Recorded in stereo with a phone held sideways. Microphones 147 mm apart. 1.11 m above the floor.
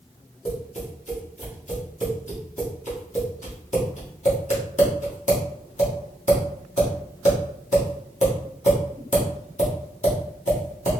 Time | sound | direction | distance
0.5 | tapping | 55° left (ahead or behind) | 1.6 m